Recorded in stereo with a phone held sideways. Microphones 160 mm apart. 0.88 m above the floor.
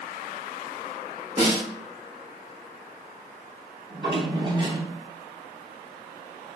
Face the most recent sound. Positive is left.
turn(degrees=-25)  # may be behind; listen again after turning